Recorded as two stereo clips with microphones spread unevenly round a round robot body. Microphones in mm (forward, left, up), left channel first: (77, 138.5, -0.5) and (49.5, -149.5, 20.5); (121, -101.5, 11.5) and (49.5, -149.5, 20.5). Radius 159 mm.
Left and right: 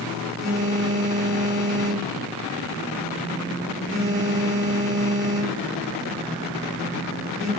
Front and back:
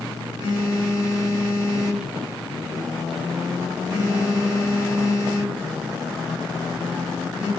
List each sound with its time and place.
0.4 s a phone buzzing: 170° left, 1.1 m